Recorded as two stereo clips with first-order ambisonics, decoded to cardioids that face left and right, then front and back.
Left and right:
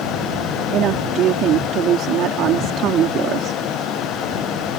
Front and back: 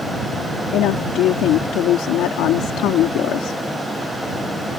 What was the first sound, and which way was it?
A woman speaking, 40° right.